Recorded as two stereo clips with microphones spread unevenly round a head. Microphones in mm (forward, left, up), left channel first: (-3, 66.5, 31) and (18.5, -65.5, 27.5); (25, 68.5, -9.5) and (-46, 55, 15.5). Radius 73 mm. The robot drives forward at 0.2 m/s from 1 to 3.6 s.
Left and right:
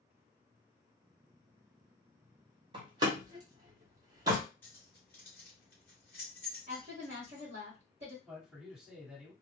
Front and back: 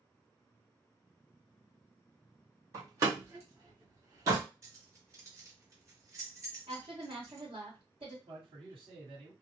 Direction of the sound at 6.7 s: 125° right.